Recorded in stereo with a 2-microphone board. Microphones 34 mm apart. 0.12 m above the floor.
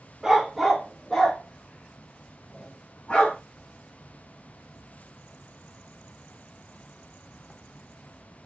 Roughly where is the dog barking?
Centre.